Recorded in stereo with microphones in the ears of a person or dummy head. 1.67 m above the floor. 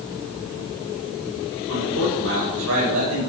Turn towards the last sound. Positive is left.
turn(degrees=-90)